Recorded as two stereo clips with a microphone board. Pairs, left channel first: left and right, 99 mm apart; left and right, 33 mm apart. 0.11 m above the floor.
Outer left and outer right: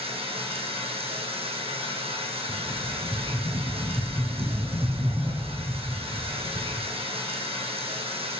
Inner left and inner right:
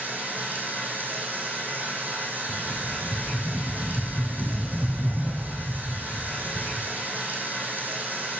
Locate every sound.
0.0 s running water: 70° right (ahead or behind), 2.0 m
2.5 s a rattle: 65° right (ahead or behind), 3.5 m